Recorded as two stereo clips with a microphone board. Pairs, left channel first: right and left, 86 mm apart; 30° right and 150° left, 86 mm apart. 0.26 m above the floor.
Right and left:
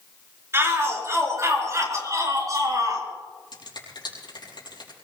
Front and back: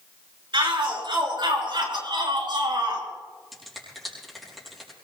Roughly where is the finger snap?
Behind right.